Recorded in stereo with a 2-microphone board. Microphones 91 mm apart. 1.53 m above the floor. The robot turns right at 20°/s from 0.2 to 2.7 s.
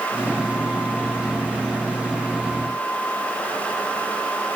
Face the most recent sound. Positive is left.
No sound to turn to.